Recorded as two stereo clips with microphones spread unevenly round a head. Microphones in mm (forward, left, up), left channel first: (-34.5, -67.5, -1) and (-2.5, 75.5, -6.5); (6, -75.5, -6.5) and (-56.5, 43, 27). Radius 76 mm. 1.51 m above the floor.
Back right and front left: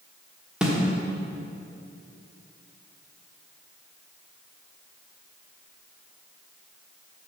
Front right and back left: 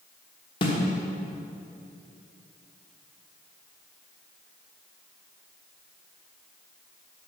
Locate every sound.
0.6 s a snare drum: 5° right, 1.2 m